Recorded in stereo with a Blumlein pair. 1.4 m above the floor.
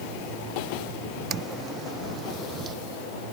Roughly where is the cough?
No cough in this recording.